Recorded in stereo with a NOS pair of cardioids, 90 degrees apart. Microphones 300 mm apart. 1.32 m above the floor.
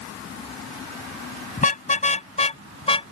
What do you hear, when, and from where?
1.6 s a car horn: 25° left; by 3.1 s 20° left